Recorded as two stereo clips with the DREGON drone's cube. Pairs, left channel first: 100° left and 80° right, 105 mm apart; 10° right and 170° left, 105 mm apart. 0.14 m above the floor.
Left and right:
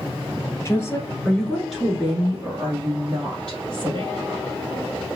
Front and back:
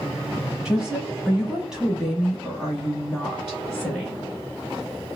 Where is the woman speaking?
100° left, 1.3 m; by 4.2 s 100° right, 1.9 m.